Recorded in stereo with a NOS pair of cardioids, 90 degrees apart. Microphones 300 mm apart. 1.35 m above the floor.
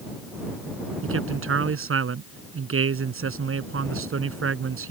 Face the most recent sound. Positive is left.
turn(degrees=-45)